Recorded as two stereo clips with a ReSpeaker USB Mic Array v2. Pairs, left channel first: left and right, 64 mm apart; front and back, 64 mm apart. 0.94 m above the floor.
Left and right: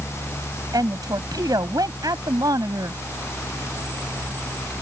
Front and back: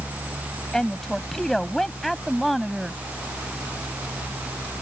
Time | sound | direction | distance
0.7 | a woman speaking | 80° right | ?